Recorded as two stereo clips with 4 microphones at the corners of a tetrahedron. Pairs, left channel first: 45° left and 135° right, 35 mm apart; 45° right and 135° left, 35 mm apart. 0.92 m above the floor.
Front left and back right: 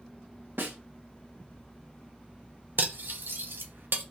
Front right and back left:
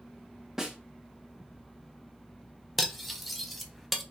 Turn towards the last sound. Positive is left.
turn(degrees=-135)